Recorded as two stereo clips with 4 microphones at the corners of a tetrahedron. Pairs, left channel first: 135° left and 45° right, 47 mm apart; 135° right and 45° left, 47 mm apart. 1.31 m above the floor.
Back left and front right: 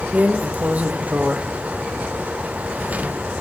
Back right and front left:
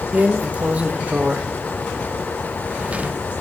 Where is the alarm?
I don't hear an alarm.